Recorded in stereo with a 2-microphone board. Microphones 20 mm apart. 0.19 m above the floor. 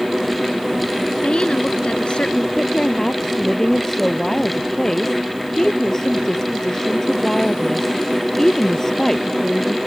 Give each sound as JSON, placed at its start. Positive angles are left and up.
{"t": 1.2, "sound": "a woman speaking", "side_deg": 60}
{"t": 2.6, "sound": "a woman speaking", "side_deg": 25}